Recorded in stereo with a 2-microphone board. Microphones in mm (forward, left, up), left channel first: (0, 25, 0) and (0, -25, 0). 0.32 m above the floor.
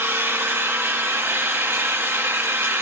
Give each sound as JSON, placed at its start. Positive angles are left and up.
{"t": 0.0, "sound": "an engine running", "side_deg": -60, "distance_m": 1.0}